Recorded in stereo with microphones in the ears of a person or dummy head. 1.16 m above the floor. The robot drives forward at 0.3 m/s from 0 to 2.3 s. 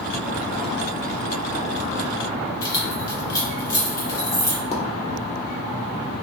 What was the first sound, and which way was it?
Keys jangling, 20° left (ahead or behind).